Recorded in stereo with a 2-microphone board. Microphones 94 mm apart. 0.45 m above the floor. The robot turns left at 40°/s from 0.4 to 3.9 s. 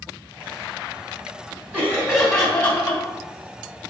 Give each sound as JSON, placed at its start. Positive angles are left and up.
{"t": 1.7, "sound": "laughter", "azimuth_deg": -160, "distance_m": 2.5}